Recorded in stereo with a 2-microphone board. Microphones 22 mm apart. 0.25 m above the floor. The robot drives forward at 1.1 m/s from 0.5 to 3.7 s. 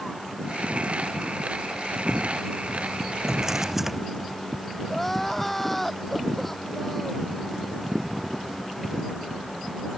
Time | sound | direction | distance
3.3 | a drawer | 15° right (ahead or behind) | ?
4.9 | crying | 10° left (ahead or behind) | ?